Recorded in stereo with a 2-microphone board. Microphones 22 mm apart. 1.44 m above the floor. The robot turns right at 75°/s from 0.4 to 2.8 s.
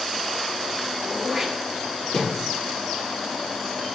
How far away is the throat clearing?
About 4.5 m.